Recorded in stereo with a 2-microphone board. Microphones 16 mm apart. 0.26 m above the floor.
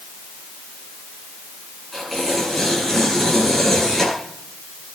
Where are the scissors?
No scissors in this recording.